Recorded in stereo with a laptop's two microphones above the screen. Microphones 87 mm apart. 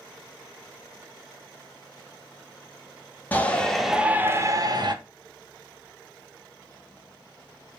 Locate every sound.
3.3 s a shout: 20° left (ahead or behind), 1.4 m; by 5.0 s 55° right (ahead or behind), 1.3 m